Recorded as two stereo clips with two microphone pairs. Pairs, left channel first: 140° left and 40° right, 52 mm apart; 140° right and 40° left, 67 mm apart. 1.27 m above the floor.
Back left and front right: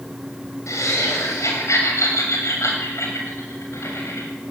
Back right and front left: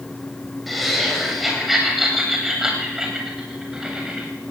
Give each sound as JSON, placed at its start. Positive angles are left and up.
{"t": 0.7, "sound": "laughter", "azimuth_deg": 130, "distance_m": 7.5}